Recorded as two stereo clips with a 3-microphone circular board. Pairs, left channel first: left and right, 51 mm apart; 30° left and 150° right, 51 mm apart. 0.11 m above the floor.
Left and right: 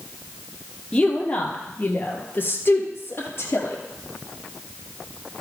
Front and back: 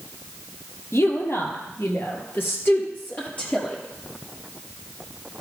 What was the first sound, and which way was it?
A woman speaking, 25° left.